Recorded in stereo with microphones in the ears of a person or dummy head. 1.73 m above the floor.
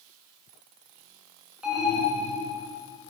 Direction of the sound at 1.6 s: Centre (ahead or behind).